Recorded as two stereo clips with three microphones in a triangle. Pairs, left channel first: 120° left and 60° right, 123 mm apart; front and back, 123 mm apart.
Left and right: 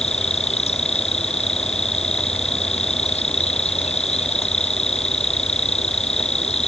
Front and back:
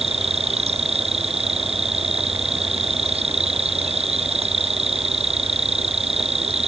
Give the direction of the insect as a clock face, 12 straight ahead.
7 o'clock.